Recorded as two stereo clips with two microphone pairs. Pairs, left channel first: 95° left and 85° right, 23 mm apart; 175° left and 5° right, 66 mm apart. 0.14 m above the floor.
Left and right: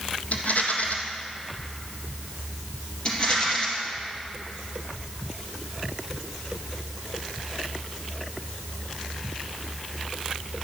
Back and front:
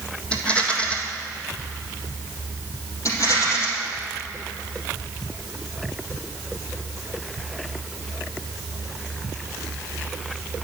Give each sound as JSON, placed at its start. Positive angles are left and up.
{"t": 0.3, "sound": "a rattle", "azimuth_deg": 105, "distance_m": 1.6}
{"t": 3.0, "sound": "a rattle", "azimuth_deg": 145, "distance_m": 4.0}